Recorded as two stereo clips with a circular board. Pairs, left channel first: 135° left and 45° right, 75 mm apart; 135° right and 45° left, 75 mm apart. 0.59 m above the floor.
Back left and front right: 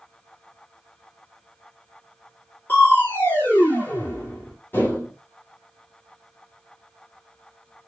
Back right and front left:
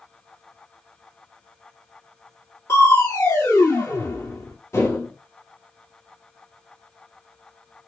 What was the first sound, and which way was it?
Crushing, 175° right.